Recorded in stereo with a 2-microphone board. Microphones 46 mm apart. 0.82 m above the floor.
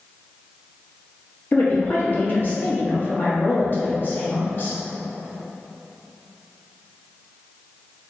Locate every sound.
1.5 s a woman speaking: 45° left (ahead or behind), 1.2 m